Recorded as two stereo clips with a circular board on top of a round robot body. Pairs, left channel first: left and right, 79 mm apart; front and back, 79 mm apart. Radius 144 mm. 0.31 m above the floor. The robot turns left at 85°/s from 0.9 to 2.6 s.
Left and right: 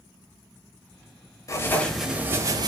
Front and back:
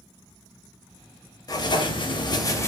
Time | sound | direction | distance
1.5 | writing | 40° left | 0.7 m